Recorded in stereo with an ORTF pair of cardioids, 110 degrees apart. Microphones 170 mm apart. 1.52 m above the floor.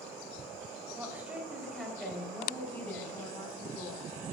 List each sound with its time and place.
0.9 s a woman speaking: 15° right, 4 m; by 4.1 s 25° left, 5.5 m